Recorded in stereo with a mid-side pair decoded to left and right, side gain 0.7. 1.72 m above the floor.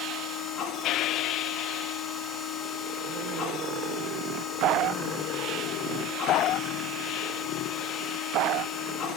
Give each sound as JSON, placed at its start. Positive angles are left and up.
{"t": 0.0, "sound": "a machine running", "azimuth_deg": 45, "distance_m": 2.5}